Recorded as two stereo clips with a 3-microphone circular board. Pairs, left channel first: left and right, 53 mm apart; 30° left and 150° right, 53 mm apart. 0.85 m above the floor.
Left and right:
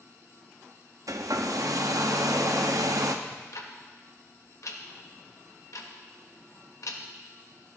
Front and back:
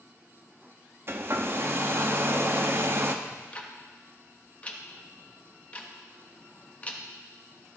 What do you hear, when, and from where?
1.1 s a hair dryer: 105° right, 0.6 m
3.2 s ticking: 90° left, 0.8 m